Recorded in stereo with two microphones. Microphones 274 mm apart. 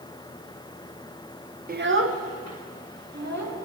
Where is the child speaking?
30° right (ahead or behind), 0.5 m; by 3.6 s 75° right (ahead or behind), 2 m.